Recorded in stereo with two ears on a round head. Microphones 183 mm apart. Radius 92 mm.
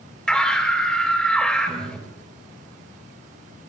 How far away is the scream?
About 3.5 m.